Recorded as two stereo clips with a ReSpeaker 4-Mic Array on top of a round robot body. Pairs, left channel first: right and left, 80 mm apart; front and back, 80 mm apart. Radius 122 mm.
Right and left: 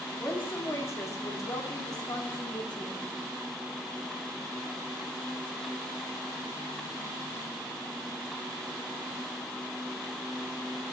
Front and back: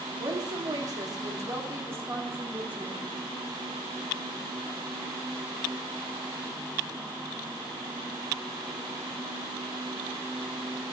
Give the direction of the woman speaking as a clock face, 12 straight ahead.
5 o'clock.